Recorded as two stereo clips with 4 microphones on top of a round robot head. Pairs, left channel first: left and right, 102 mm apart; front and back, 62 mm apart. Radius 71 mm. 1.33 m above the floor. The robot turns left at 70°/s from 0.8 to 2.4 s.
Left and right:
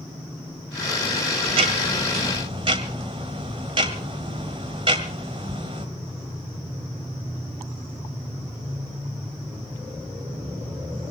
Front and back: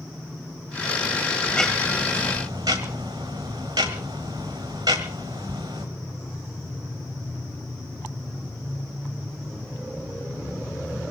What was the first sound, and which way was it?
Ticking, 70° right.